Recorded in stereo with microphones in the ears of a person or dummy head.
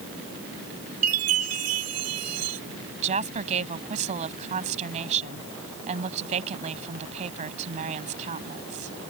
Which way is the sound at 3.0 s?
40° right (ahead or behind).